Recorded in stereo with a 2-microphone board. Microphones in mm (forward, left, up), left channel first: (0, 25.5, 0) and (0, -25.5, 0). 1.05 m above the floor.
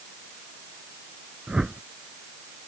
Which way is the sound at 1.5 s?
15° right (ahead or behind).